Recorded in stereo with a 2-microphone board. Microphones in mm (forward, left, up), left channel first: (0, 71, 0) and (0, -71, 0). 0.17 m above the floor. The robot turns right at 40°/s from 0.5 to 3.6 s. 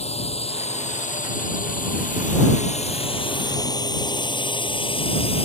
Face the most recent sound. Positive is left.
turn(degrees=45)  # may be behind; listen again after turning